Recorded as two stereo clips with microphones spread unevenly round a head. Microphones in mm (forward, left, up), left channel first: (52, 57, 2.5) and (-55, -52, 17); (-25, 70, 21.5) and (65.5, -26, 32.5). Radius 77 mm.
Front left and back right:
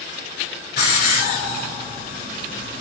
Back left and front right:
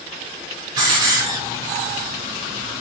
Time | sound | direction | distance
0.8 | a hiss | 10° left | 5 m